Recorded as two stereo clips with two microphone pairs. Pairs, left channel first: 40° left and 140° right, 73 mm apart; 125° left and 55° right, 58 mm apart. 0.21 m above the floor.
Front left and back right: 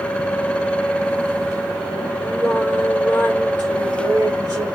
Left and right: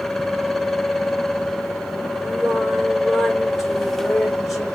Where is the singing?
145° right, 3 m.